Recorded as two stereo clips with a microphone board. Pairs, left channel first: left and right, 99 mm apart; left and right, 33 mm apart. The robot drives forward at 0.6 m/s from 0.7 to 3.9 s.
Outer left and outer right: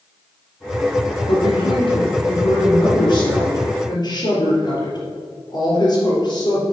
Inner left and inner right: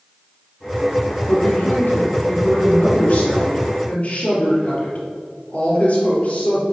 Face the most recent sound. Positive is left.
turn(degrees=45)  # may be behind; listen again after turning